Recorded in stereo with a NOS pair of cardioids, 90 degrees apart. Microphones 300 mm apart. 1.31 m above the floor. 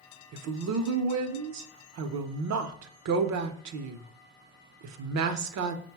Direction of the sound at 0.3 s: 65° right.